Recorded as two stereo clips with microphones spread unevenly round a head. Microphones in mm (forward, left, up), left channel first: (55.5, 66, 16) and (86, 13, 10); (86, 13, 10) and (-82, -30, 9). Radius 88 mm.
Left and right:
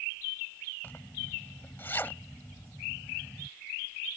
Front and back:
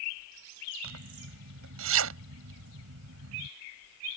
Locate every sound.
0.8 s a zipper: 160° right